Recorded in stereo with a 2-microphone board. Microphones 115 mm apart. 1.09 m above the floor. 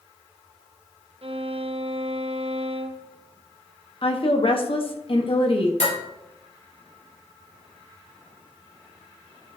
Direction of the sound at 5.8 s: 80° left.